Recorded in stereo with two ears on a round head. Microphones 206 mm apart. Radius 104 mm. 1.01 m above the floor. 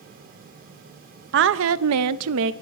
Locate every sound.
1.3 s a woman speaking: 50° right (ahead or behind), 0.8 m; by 2.5 s 55° right (ahead or behind), 0.7 m